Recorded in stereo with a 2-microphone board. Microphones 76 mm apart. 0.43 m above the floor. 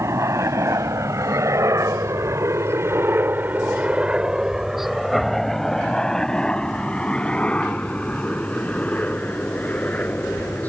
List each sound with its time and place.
0.0 s a helicopter: 40° right (ahead or behind); by 10.7 s 20° left (ahead or behind)